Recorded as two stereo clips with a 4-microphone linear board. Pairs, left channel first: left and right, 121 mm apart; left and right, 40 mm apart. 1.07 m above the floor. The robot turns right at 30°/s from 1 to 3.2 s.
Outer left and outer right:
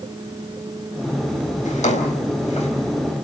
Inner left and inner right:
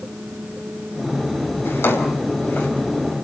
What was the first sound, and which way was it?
A drawer, 85° left.